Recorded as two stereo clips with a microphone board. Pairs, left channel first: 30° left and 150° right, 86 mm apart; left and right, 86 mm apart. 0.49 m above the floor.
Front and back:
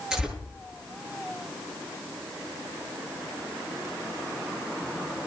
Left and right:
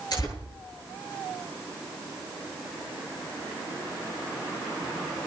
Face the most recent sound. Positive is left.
turn(degrees=125)